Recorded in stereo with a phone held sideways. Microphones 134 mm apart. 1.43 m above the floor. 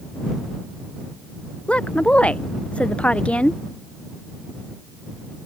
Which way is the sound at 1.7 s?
10° left (ahead or behind).